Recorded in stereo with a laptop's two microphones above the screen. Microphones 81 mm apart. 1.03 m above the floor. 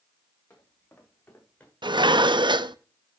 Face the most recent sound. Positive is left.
turn(degrees=-75)  # may be behind; listen again after turning